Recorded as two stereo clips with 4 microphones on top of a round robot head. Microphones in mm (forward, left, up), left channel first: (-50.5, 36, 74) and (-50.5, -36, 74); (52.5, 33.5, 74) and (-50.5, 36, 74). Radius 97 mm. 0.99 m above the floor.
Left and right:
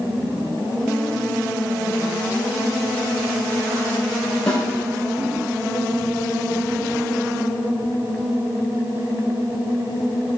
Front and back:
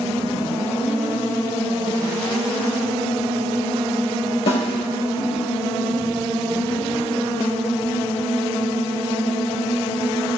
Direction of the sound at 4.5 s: 10° left.